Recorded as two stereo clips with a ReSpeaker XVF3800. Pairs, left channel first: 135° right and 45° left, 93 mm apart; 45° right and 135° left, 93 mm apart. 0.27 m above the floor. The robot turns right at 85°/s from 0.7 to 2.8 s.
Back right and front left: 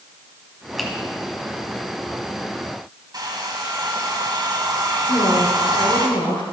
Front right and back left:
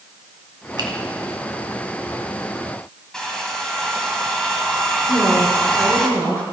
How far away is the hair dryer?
About 1.9 m.